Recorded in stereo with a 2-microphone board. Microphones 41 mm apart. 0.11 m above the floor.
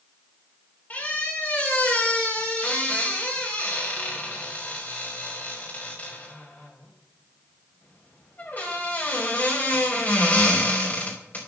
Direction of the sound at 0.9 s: 45° left (ahead or behind).